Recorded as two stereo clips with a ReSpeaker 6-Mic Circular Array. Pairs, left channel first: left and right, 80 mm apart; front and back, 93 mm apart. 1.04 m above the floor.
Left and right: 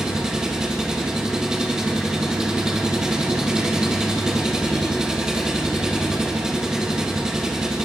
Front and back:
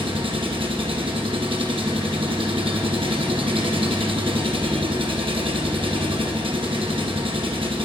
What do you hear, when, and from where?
0.0 s an engine running: 170° right, 1.1 m